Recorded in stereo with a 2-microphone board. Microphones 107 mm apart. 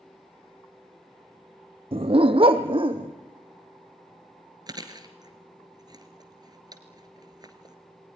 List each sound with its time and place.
1.9 s a dog barking: 60° right (ahead or behind), 0.7 m; by 3.1 s 50° right (ahead or behind), 2 m
4.7 s chewing: 40° right (ahead or behind), 1.9 m